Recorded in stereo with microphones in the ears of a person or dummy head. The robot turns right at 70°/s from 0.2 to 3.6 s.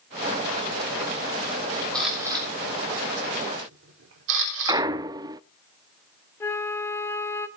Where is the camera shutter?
10° left (ahead or behind), 3.5 m; by 4.8 s 70° right (ahead or behind), 3.5 m.